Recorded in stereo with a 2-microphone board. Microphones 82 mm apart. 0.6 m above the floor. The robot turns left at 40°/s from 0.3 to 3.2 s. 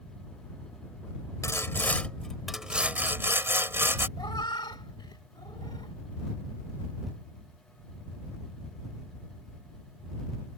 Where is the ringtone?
I don't hear a ringtone.